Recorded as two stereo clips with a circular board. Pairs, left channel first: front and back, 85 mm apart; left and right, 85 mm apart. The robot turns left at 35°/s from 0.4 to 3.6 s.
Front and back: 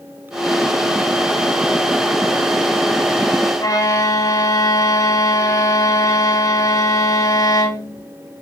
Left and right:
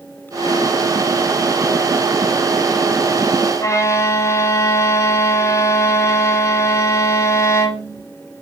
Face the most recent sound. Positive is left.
turn(degrees=40)